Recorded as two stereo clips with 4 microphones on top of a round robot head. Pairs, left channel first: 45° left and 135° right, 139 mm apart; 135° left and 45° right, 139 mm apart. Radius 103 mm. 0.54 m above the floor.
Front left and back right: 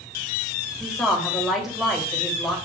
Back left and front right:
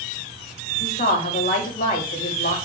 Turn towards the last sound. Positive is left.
turn(degrees=135)